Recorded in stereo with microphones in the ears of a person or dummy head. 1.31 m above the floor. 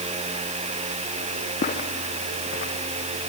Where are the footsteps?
45° left (ahead or behind), 2.5 m; by 3.3 s 55° left (ahead or behind), 2.5 m.